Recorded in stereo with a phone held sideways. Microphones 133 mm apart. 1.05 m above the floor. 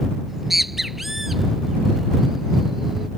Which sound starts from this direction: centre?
A bird, at 0.3 s.